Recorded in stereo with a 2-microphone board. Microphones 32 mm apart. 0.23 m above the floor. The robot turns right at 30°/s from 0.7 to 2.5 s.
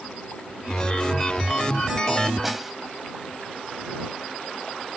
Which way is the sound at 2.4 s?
5° right (ahead or behind).